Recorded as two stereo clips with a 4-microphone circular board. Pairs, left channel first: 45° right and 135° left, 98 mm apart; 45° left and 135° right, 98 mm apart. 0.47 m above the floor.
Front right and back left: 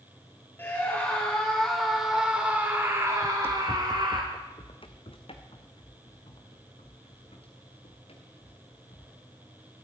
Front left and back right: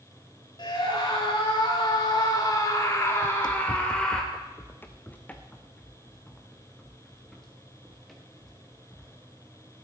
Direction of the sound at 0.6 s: 20° left.